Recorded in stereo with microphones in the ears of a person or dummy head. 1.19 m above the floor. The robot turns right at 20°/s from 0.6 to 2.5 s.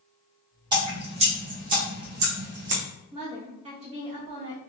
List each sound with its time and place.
0.7 s dripping: 20° right (ahead or behind), 0.7 m; by 2.8 s 50° right (ahead or behind), 0.7 m
3.1 s a woman speaking: 30° right (ahead or behind), 1.1 m